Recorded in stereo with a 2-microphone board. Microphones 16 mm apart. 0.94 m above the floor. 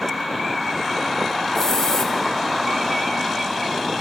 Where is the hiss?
35° left (ahead or behind), 1.6 m.